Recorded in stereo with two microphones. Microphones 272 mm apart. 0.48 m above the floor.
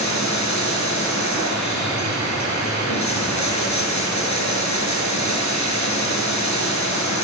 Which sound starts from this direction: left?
Running water, at 0.0 s.